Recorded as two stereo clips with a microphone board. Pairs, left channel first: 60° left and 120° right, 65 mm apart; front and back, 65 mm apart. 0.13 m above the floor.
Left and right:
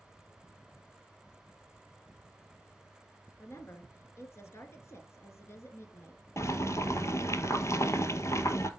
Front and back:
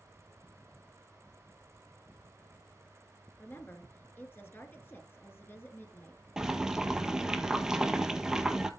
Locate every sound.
3.4 s a woman speaking: 40° left, 2 m
6.4 s boiling: 100° left, 0.9 m